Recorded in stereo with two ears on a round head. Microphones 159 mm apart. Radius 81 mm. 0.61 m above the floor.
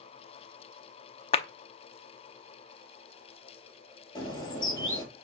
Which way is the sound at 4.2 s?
25° left (ahead or behind).